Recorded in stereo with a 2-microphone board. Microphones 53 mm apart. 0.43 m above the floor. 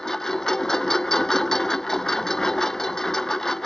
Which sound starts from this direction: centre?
A lawn mower, at 0.0 s.